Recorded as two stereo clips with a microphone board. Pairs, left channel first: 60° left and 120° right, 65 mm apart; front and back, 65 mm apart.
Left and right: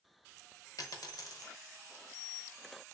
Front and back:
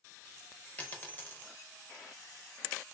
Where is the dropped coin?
60° left, 0.5 m.